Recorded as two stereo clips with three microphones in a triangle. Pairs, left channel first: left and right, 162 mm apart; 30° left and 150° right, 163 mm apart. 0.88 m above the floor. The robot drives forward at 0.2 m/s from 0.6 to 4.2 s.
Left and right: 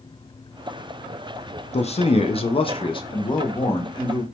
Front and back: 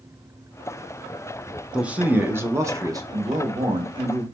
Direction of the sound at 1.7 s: 130° left.